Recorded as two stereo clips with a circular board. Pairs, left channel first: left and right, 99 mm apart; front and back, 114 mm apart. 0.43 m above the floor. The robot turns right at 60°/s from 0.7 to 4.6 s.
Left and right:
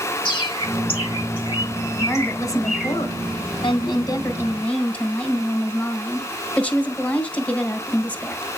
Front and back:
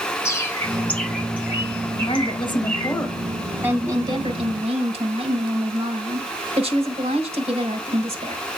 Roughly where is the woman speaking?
Ahead.